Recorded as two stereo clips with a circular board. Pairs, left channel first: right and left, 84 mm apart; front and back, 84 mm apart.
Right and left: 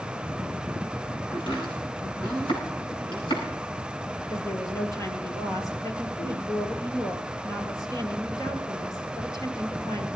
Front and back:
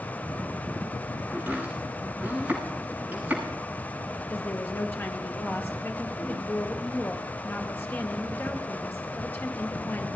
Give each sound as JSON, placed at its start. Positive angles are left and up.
{"t": 1.3, "sound": "chopping", "azimuth_deg": -110, "distance_m": 9.5}
{"t": 4.3, "sound": "a woman speaking", "azimuth_deg": -60, "distance_m": 2.5}